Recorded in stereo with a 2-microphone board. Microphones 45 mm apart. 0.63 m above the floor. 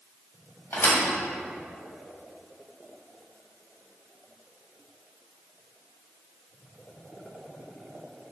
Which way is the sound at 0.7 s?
60° left (ahead or behind).